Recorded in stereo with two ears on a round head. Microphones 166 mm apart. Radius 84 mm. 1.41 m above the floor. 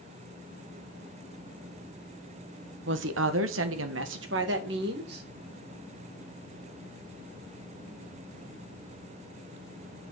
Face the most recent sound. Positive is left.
turn(degrees=-55)  # may be behind; listen again after turning